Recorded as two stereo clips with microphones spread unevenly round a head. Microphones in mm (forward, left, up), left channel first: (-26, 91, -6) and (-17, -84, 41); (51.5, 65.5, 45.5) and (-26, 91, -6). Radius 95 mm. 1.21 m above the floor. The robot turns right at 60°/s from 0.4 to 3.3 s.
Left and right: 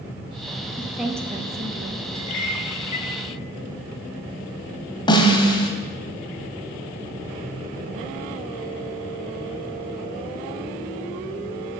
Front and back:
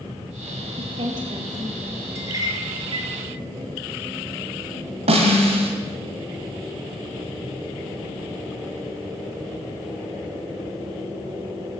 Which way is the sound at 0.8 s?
170° left.